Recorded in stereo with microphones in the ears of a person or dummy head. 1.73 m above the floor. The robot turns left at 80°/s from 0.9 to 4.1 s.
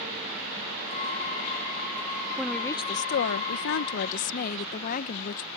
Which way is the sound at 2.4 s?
170° right.